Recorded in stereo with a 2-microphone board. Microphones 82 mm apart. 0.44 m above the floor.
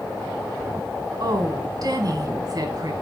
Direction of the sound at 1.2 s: 50° right (ahead or behind).